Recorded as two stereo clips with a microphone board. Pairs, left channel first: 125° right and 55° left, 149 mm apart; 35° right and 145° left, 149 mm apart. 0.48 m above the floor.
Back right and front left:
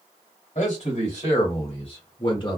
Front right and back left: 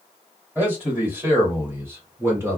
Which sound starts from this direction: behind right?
A man speaking, at 0.6 s.